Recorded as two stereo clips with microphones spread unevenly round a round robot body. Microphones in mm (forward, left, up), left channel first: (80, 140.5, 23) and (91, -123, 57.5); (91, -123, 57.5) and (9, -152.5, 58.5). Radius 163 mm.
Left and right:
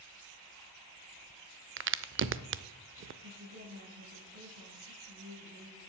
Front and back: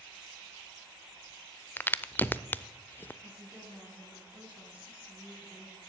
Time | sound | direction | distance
1.8 | a crack | 45° right | 0.7 m
3.2 | a woman speaking | 85° right | 5.5 m